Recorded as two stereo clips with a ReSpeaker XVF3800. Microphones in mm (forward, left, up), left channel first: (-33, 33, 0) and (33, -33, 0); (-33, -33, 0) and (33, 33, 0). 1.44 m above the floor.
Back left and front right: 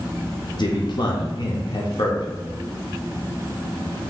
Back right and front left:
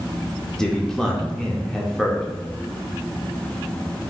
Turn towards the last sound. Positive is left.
turn(degrees=145)